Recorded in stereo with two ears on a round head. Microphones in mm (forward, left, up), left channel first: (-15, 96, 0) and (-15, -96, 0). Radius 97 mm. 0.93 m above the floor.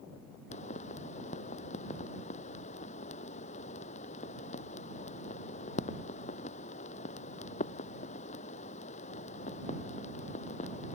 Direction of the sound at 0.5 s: 35° left (ahead or behind).